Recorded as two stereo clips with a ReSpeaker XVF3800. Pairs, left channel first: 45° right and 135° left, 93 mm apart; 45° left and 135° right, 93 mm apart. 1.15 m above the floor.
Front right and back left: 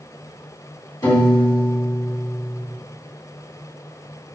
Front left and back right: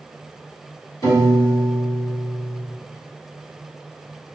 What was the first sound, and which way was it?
A piano, 5° right.